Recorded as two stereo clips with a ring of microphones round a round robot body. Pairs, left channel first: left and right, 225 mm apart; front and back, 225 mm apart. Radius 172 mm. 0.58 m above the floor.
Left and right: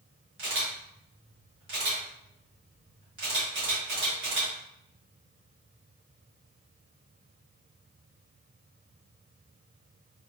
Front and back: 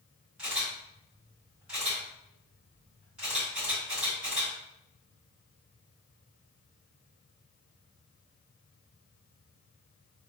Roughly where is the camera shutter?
Right.